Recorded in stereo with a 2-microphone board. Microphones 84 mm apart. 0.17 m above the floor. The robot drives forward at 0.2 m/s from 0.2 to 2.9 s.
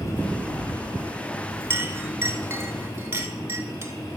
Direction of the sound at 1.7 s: 30° right (ahead or behind).